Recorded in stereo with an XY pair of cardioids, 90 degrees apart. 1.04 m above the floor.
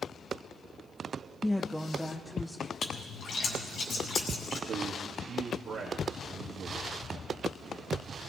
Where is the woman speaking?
15° left, 0.7 m; by 2.7 s 5° left, 2.5 m.